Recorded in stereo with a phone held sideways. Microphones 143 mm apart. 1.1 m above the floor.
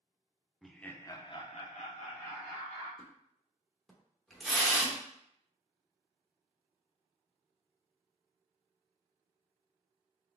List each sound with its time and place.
0.6 s laughter: centre (ahead or behind), 0.6 m; by 2.9 s 60° left (ahead or behind), 1.2 m
3.0 s a splash: centre (ahead or behind), 0.8 m